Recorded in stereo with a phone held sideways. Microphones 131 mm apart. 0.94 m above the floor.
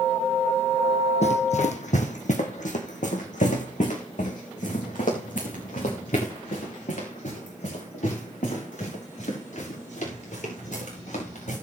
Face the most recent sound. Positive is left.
turn(degrees=70)  # may be behind; listen again after turning